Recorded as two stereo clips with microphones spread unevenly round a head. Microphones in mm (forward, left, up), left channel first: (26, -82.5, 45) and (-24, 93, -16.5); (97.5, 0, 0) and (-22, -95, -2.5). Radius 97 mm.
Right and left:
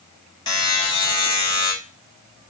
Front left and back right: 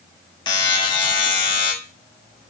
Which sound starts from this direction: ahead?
A buzzer, at 0.5 s.